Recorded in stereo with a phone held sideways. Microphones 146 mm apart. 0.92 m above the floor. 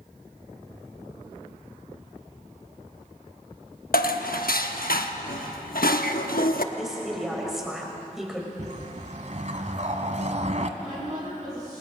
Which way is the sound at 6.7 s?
5° right (ahead or behind).